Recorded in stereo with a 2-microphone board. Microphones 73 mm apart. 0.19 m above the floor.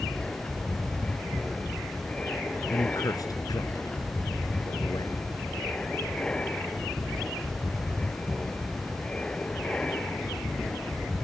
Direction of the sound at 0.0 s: 15° left (ahead or behind).